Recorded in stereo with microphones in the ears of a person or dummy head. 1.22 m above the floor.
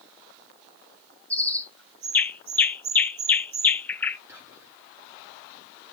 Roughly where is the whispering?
Centre.